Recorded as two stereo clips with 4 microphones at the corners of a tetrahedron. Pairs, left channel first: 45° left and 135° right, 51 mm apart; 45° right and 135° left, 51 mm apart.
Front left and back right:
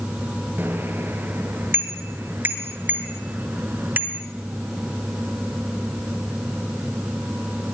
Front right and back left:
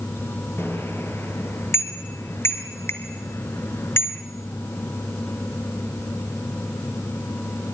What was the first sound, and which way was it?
A bicycle bell, 85° right.